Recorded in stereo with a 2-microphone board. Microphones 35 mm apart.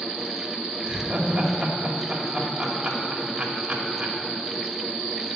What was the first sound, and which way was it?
Laughter, 35° right (ahead or behind).